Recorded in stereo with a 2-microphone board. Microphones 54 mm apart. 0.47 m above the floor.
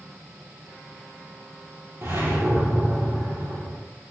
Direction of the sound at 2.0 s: 50° right (ahead or behind).